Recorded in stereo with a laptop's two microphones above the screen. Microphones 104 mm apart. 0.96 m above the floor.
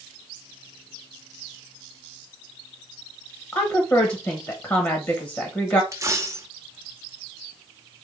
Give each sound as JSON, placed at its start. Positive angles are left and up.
{"t": 3.5, "sound": "a woman speaking", "side_deg": 30, "distance_m": 0.8}
{"t": 5.9, "sound": "a dropped coin", "side_deg": -30, "distance_m": 0.7}